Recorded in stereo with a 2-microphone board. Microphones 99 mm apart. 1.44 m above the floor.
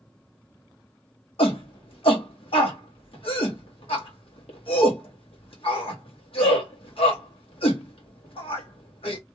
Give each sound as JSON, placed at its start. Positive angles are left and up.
{"t": 1.4, "sound": "a shout", "side_deg": 75, "distance_m": 1.5}